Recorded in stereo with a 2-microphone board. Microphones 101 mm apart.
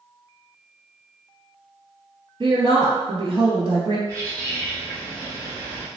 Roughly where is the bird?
Right.